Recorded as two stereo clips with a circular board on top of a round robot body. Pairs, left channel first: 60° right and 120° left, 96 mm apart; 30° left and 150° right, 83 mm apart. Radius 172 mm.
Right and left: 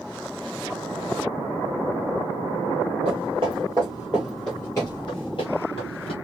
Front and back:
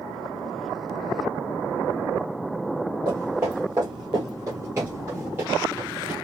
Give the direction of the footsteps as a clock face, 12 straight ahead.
7 o'clock.